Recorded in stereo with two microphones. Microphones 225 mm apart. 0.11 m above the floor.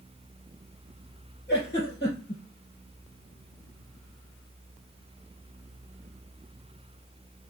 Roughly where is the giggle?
Left.